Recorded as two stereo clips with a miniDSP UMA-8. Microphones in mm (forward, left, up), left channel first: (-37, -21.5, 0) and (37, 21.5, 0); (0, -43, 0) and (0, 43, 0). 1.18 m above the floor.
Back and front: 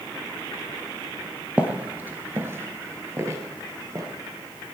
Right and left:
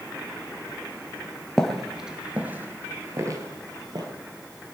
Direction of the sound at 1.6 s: 15° right.